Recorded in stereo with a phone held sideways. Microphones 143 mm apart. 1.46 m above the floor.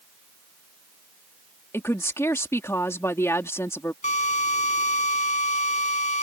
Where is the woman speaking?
20° left (ahead or behind).